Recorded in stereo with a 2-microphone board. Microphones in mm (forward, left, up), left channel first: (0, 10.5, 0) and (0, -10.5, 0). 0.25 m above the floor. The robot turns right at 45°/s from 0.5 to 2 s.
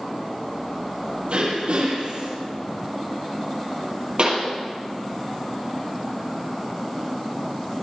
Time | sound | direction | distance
1.3 | throat clearing | 110° right | 8 m
4.2 | a pop | 55° right (ahead or behind) | 5.5 m